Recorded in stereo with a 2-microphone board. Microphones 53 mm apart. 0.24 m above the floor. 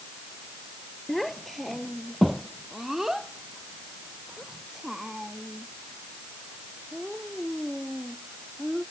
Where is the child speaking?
5° left (ahead or behind); by 8.8 s 10° right (ahead or behind).